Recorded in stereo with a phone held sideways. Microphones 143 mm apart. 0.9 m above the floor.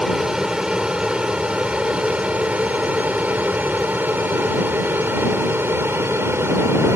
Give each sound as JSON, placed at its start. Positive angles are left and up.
{"t": 0.0, "sound": "an aircraft", "side_deg": -5}